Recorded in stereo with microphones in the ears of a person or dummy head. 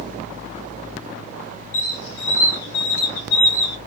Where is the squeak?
70° left (ahead or behind), 1.5 m.